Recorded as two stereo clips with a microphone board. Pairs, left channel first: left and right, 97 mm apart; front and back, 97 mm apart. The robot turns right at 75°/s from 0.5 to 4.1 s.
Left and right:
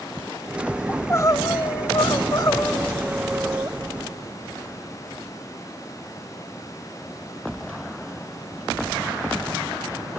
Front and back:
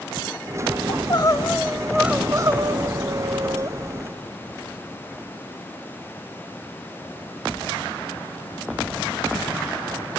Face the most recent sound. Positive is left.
turn(degrees=-105)